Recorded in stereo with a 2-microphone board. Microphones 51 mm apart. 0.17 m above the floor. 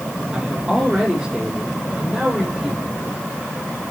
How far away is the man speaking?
About 5.5 m.